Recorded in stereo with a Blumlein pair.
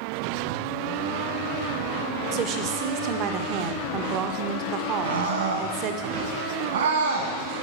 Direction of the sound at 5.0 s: 60° right.